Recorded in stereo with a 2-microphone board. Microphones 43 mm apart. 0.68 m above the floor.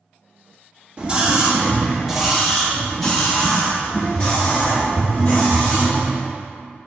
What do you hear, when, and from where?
1.0 s a scream: 25° right (ahead or behind), 1.2 m; by 6.1 s 25° left (ahead or behind), 2.5 m